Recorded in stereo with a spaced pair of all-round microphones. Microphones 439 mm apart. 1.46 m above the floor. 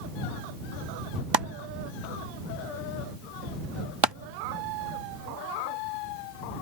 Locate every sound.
1.3 s chopping: 65° right (ahead or behind)